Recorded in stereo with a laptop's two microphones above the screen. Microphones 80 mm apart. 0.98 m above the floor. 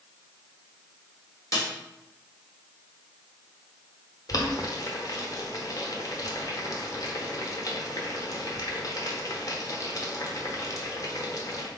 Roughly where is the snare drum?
Left.